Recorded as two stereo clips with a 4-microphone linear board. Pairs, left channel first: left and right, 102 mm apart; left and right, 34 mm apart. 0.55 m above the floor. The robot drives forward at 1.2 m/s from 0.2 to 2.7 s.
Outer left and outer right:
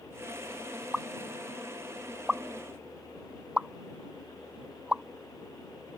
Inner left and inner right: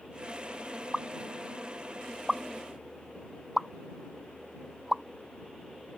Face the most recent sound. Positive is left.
turn(degrees=-10)  # may be behind; listen again after turning